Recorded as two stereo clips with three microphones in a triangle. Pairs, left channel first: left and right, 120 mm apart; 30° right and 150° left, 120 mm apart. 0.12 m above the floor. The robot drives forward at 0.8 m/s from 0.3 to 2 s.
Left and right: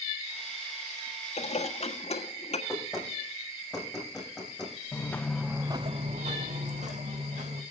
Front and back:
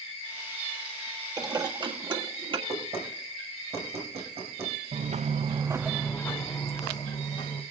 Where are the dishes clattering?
95° left, 2 m; by 2.6 s 110° left, 2 m.